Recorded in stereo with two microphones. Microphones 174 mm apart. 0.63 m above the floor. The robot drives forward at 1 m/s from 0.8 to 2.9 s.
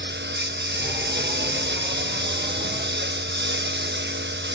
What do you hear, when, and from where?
0.0 s a lawn mower: 80° right; by 4.5 s 85° right